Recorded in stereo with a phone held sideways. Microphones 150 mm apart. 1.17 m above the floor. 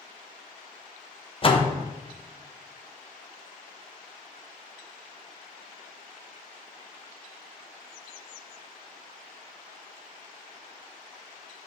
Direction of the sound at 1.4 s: 35° left (ahead or behind).